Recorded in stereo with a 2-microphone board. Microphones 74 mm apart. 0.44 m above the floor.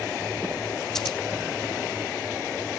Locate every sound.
0.9 s scissors: 5° left (ahead or behind), 0.7 m